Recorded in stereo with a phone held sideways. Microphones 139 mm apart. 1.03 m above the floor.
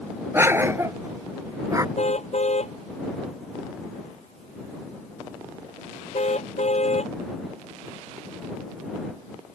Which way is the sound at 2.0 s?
50° left (ahead or behind).